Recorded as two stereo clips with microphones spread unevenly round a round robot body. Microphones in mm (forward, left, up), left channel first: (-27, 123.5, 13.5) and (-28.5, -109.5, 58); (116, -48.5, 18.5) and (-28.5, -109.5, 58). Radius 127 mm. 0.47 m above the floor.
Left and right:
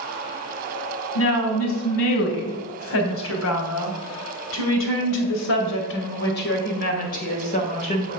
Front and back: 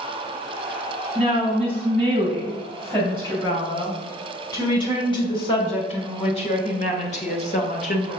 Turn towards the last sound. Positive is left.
turn(degrees=30)